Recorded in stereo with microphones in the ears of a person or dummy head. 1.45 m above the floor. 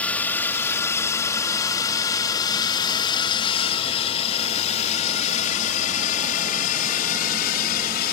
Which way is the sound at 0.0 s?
10° left (ahead or behind).